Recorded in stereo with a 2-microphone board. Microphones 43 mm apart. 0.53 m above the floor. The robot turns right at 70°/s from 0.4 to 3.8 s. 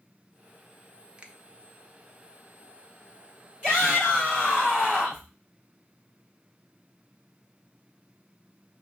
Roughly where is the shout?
Right.